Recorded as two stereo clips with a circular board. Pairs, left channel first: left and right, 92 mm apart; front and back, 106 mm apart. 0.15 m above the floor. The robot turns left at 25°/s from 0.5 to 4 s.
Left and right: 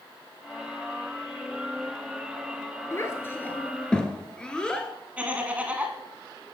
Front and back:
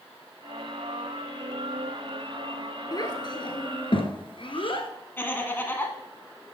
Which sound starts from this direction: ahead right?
Laughter, at 5.2 s.